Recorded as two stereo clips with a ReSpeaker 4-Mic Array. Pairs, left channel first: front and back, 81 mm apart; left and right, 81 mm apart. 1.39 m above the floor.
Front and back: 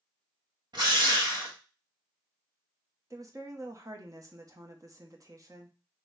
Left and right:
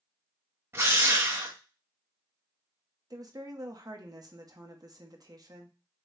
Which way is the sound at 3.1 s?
130° right.